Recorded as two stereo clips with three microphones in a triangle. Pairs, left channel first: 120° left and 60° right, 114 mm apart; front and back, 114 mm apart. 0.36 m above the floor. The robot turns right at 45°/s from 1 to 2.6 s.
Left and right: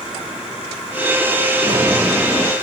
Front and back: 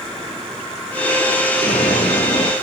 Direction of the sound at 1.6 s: Straight ahead.